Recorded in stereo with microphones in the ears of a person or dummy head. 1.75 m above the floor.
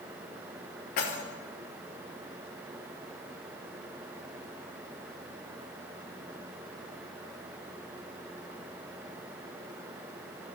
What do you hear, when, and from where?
1.0 s keys jangling: 45° left (ahead or behind), 1.0 m